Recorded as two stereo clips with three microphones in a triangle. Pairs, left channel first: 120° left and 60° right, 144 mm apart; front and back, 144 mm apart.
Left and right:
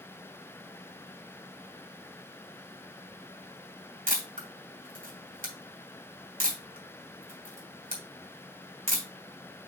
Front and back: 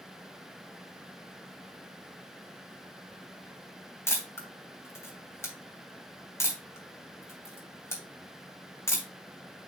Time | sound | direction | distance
4.1 | a camera shutter | 70° right | 2.5 m